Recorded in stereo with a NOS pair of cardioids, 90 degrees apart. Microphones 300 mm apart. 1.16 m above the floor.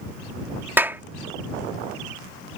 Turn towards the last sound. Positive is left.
turn(degrees=-5)